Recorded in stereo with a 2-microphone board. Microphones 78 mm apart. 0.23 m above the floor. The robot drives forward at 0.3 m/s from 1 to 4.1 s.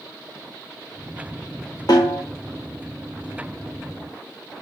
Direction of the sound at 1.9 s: 60° left (ahead or behind).